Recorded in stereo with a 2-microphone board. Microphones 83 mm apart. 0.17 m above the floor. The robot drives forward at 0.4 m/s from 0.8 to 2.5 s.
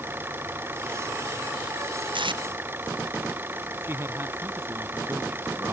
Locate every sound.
0.0 s an engine running: 25° right (ahead or behind)
2.1 s tape being pulled: 80° right; by 2.4 s 75° right (ahead or behind)
3.8 s a man speaking: 30° right (ahead or behind)